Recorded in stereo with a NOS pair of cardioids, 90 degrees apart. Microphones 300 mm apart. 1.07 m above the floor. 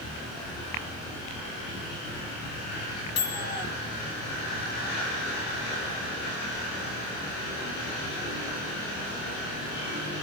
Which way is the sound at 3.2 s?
55° left.